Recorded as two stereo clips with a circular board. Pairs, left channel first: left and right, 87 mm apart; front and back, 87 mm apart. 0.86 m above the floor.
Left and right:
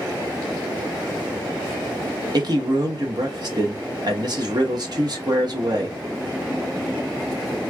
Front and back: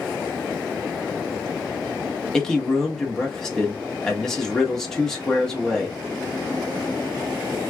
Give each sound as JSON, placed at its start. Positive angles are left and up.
{"t": 2.3, "sound": "a man speaking", "azimuth_deg": -85, "distance_m": 1.1}